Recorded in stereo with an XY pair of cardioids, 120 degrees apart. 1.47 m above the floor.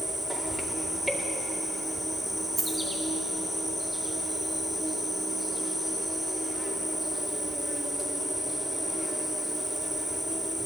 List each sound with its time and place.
0.0 s an insect: 10° right, 2.5 m
2.6 s a dropped coin: 40° right, 4 m